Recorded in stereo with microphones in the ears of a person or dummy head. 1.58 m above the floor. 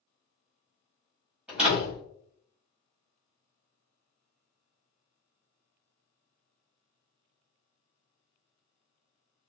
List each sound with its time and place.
1.5 s a door slam: 5° right (ahead or behind), 1.3 m